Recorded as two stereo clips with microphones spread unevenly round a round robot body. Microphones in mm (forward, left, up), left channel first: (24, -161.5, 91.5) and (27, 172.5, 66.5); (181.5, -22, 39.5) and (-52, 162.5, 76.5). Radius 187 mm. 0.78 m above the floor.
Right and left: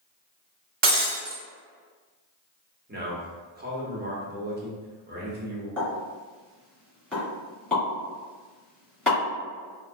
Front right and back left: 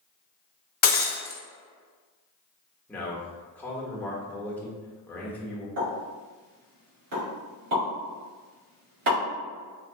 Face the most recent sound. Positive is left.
turn(degrees=180)